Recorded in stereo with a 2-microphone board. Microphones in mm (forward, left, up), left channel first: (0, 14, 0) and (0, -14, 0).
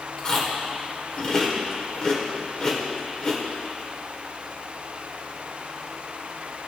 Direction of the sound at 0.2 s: 30° left (ahead or behind).